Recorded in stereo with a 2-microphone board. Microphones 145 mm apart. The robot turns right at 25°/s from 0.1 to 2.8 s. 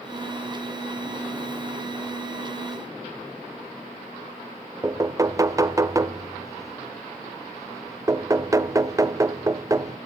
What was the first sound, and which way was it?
Knocking, 20° right (ahead or behind).